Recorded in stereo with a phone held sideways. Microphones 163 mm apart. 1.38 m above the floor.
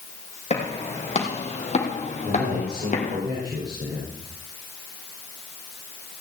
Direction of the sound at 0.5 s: 40° left (ahead or behind).